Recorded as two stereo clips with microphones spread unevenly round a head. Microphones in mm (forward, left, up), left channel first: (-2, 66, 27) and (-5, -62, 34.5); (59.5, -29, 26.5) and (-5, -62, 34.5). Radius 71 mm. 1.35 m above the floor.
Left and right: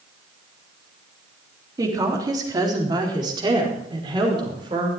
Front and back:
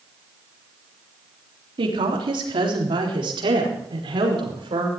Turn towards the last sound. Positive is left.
turn(degrees=-150)